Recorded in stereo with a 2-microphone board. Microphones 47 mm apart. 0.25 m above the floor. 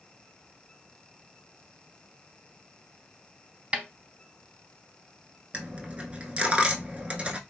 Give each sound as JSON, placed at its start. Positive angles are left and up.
{"t": 3.7, "sound": "a snare drum", "side_deg": -25, "distance_m": 0.5}
{"t": 5.5, "sound": "a dropped coin", "side_deg": -25, "distance_m": 0.6}